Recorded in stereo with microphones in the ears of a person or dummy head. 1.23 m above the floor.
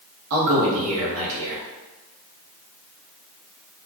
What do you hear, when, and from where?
0.3 s a man speaking: 80° right, 0.9 m